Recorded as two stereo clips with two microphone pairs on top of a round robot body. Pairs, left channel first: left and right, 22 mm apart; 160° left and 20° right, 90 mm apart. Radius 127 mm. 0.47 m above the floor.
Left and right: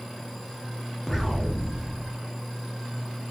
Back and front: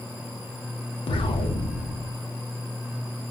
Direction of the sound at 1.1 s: Straight behind.